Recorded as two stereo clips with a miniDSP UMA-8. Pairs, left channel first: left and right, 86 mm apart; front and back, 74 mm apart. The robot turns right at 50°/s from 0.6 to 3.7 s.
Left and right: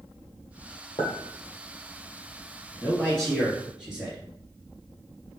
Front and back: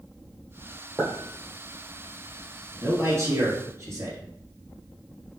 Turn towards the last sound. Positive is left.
turn(degrees=-165)